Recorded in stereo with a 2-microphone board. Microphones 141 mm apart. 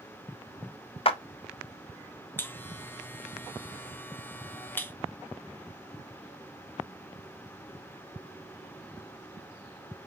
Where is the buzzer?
15° left (ahead or behind), 0.5 m.